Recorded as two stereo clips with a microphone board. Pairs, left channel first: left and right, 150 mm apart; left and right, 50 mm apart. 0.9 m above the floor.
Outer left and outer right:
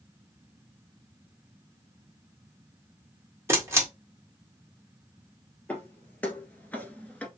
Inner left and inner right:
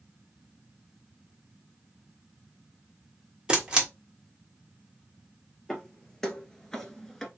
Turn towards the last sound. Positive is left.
turn(degrees=10)  # may be behind; listen again after turning